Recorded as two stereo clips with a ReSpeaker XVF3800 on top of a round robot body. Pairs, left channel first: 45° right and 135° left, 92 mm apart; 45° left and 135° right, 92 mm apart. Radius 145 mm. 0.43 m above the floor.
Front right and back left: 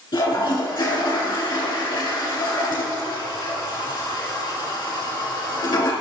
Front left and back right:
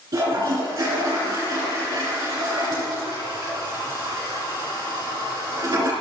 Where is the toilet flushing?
85° right, 3.5 m.